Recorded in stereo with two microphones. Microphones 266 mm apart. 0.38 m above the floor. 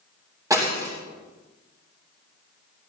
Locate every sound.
0.5 s breaking glass: 15° right (ahead or behind), 6.5 m